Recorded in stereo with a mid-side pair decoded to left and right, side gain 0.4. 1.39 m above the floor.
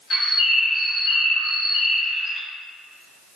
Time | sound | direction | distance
0.1 | a bird | 60° left | 1.4 m